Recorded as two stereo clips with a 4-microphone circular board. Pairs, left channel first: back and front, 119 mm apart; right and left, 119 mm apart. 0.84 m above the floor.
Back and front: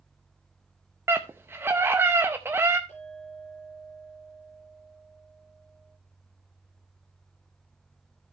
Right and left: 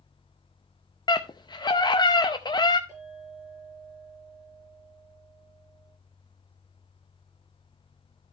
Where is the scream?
60° right, 0.6 m.